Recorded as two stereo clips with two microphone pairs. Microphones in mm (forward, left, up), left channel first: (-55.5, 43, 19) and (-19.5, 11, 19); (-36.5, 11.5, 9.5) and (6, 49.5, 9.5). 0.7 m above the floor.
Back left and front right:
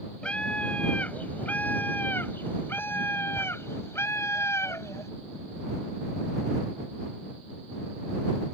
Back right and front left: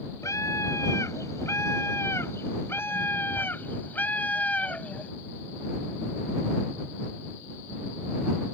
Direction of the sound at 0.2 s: 155° right.